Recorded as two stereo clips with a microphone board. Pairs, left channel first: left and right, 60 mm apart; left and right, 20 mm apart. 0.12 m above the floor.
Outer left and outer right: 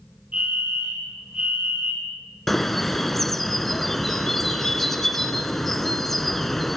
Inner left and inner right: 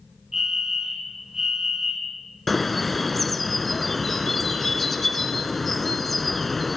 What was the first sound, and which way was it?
A fire alarm, 25° right (ahead or behind).